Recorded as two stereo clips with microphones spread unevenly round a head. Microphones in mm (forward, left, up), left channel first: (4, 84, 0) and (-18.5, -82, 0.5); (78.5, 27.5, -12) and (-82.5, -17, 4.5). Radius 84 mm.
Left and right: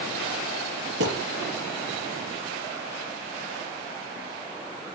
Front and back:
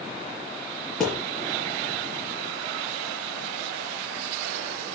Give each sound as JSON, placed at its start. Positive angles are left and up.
{"t": 1.0, "sound": "a thud", "azimuth_deg": -75, "distance_m": 6.0}